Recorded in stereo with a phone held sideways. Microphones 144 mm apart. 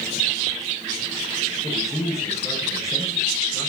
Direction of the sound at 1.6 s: 20° left (ahead or behind).